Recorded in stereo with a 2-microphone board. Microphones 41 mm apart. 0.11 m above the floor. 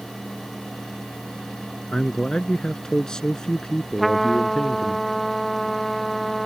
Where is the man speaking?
15° left (ahead or behind).